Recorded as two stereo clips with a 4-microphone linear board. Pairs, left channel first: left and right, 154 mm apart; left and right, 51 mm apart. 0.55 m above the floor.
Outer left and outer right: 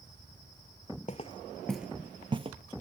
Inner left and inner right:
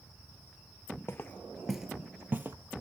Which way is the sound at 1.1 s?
45° left (ahead or behind).